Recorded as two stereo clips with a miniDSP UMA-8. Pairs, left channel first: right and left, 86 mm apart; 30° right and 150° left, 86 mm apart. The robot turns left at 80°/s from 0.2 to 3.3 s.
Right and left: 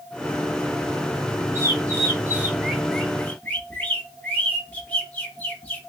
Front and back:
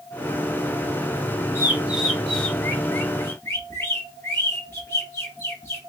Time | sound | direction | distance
1.6 | a bird | 110° left | 1.0 m